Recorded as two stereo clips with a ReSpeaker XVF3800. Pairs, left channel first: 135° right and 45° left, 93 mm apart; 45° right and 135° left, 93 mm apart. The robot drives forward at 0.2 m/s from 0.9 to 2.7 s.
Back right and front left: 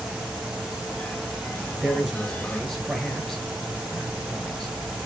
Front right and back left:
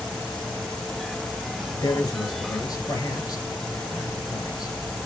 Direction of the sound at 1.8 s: 50° right.